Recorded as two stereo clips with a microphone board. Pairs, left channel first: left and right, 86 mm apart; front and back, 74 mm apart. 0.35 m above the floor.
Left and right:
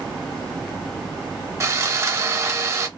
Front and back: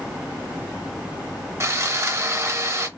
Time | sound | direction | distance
1.6 | sawing | 135° right | 0.6 m